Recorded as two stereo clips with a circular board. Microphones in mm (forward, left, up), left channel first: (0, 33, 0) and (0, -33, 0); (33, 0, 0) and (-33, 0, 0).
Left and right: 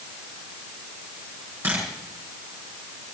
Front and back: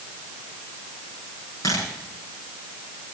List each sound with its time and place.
1.6 s a camera shutter: 35° right, 5.5 m